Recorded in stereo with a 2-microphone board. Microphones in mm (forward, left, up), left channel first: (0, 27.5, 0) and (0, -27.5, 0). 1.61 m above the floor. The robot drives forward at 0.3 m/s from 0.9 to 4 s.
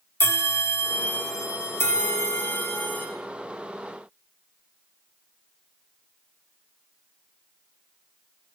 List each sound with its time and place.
0.2 s a bell: 40° left (ahead or behind), 0.5 m; by 3.1 s 35° left (ahead or behind), 0.6 m